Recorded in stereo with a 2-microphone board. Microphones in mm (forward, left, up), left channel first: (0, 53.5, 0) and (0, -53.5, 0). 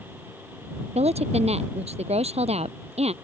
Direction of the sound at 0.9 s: 80° right.